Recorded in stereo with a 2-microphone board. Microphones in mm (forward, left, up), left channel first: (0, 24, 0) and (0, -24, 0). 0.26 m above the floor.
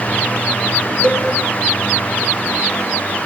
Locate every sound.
1.0 s a cowbell: 25° left (ahead or behind), 3 m